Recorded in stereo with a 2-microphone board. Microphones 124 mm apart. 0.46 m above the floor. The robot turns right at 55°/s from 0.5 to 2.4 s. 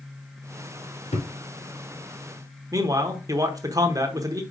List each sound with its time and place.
1.1 s a thud: 80° left, 1.8 m; by 1.3 s 85° left, 1.8 m
2.7 s a man speaking: 30° right (ahead or behind), 1.0 m